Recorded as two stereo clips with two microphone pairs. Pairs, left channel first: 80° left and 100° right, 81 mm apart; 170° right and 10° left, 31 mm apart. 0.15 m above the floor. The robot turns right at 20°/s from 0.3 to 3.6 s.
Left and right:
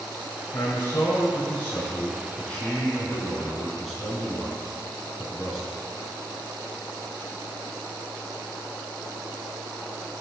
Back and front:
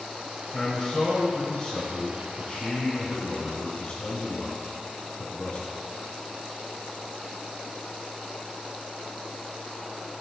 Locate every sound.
0.5 s a man speaking: 110° left, 1.5 m; by 5.8 s 170° left, 1.5 m